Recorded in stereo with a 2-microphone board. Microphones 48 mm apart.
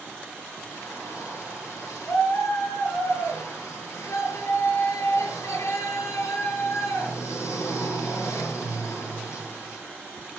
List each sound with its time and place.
0.7 s a shout: 65° left (ahead or behind), 9 m